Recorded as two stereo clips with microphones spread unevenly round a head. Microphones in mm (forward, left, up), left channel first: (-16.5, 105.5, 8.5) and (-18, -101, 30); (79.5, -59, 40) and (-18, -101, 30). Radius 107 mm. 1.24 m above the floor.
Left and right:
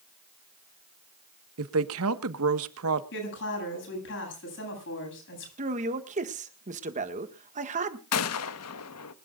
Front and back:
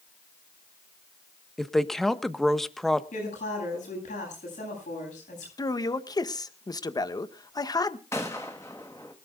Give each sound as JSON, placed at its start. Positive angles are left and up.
{"t": 1.6, "sound": "a woman speaking", "azimuth_deg": -65, "distance_m": 1.4}
{"t": 3.1, "sound": "a woman speaking", "azimuth_deg": 55, "distance_m": 9.5}
{"t": 5.6, "sound": "a man speaking", "azimuth_deg": -30, "distance_m": 1.7}
{"t": 8.1, "sound": "a gunshot", "azimuth_deg": 100, "distance_m": 1.1}